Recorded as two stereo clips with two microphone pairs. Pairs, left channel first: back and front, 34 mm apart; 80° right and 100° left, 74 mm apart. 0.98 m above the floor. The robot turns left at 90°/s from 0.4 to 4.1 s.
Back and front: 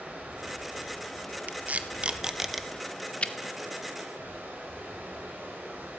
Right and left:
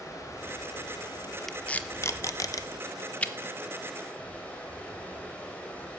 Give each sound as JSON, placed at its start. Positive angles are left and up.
{"t": 0.0, "sound": "running water", "azimuth_deg": -35, "distance_m": 4.0}
{"t": 1.5, "sound": "tape being pulled", "azimuth_deg": 10, "distance_m": 0.7}